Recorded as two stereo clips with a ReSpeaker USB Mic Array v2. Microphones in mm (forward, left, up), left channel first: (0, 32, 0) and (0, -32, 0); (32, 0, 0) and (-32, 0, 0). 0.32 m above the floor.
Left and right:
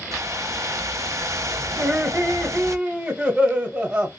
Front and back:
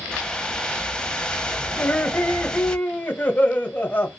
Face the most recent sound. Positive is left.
turn(degrees=-30)